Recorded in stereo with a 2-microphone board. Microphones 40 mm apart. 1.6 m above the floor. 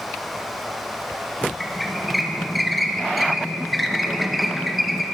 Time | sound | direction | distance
1.6 | a squeak | centre (ahead or behind) | 0.8 m